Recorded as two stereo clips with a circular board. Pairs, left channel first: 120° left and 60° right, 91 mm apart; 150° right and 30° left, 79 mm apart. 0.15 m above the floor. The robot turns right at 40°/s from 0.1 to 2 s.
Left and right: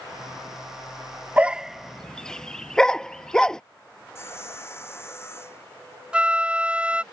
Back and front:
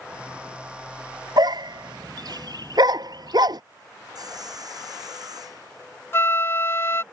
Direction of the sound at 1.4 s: 15° left.